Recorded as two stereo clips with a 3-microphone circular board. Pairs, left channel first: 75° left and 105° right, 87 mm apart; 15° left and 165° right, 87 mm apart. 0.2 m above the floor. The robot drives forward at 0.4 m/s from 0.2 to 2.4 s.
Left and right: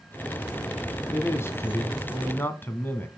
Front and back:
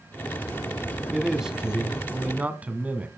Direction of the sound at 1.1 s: 110° left.